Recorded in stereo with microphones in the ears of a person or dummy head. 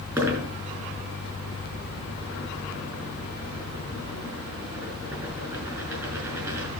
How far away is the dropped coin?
About 5 m.